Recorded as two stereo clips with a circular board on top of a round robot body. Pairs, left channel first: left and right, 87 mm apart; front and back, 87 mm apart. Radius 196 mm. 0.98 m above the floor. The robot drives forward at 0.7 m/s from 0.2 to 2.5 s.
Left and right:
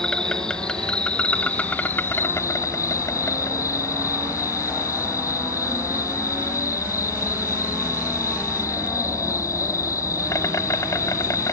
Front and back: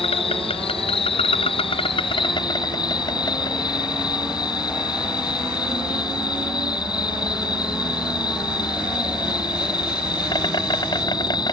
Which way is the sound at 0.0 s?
10° left.